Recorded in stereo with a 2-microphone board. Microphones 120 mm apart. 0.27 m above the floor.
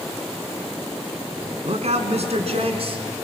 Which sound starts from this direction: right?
A man speaking, at 1.6 s.